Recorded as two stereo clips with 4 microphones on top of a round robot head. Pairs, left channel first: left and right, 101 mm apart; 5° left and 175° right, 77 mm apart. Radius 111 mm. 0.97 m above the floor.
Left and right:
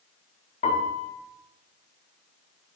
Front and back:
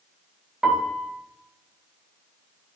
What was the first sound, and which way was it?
A piano, 100° left.